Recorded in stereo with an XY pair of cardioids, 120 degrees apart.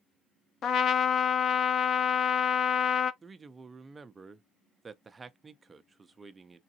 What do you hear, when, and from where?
0.6 s a trumpet: 50° left, 0.5 m
3.2 s a man speaking: 20° right, 0.6 m